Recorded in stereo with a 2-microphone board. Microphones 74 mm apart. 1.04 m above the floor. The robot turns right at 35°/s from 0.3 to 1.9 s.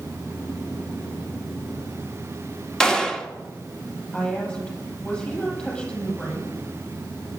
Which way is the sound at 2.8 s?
10° left (ahead or behind).